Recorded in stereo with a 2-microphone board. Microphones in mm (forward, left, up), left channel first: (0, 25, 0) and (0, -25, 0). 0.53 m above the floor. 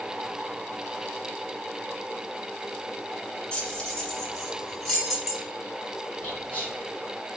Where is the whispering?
25° left (ahead or behind), 1.5 m.